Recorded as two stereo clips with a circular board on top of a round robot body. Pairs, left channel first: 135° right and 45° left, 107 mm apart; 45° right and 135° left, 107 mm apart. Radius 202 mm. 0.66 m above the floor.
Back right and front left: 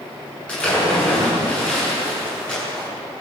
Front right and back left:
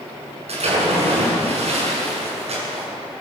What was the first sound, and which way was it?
A splash, 145° left.